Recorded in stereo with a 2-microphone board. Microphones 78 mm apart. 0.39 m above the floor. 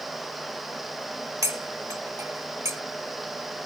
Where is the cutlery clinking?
40° right (ahead or behind).